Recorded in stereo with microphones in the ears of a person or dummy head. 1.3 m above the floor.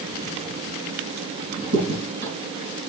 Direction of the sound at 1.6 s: 60° right (ahead or behind).